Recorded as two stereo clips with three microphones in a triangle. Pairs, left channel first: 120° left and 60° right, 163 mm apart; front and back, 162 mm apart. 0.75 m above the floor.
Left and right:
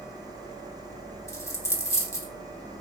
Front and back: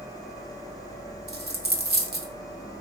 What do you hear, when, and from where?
1.3 s a dropped coin: 170° right, 0.5 m